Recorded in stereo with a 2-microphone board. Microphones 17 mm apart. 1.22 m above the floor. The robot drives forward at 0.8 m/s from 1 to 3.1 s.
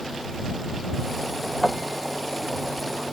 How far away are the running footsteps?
I don't hear running footsteps.